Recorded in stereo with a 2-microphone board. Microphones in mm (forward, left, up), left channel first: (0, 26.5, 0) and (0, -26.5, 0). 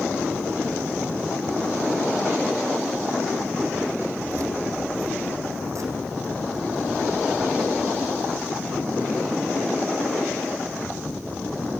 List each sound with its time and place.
4.3 s keys jangling: 75° right (ahead or behind), 5.5 m; by 9.4 s 50° right (ahead or behind), 9 m